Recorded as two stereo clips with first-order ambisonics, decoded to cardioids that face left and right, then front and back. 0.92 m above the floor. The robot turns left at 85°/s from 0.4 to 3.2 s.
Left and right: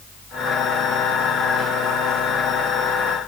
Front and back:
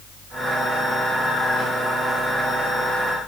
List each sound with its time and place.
Only background noise.